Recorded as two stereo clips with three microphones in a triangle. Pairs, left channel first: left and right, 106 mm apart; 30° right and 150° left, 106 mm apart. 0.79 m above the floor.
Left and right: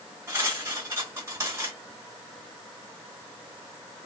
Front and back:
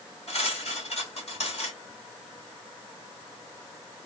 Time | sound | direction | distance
0.3 | cutlery clinking | 25° right | 1.8 m